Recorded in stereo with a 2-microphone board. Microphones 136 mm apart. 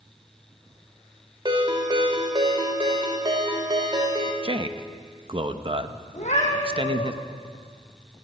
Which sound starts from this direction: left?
A cat meowing, at 6.1 s.